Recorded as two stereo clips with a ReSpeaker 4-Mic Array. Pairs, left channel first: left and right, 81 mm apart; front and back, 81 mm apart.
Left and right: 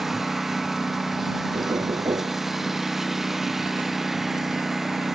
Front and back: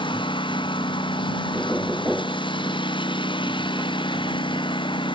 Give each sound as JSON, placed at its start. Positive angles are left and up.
{"t": 0.0, "sound": "a lawn mower", "azimuth_deg": -5}
{"t": 1.5, "sound": "knocking", "azimuth_deg": -75}